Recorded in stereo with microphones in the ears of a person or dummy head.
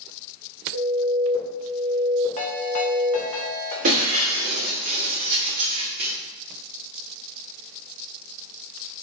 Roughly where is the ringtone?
Left.